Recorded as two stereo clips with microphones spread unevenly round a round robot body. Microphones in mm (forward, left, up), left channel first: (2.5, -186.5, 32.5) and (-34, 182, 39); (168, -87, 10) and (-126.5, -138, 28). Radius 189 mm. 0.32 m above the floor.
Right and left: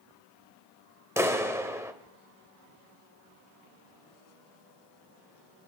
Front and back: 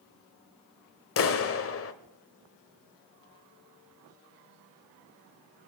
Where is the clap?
15° left, 0.8 m.